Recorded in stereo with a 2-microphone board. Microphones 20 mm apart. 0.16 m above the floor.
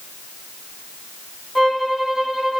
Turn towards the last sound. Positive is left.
turn(degrees=-5)  # may be behind; listen again after turning